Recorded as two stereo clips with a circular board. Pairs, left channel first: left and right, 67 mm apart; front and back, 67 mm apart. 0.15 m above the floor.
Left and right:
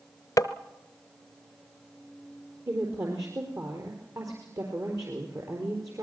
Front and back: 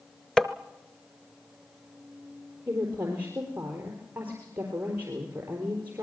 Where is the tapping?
80° left, 0.9 m.